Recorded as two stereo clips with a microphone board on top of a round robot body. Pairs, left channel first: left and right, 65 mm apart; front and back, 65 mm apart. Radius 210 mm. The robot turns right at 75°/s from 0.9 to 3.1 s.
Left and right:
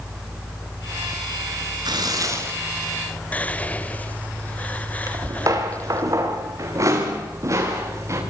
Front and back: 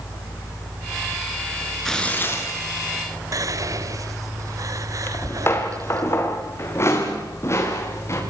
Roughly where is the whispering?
Behind left.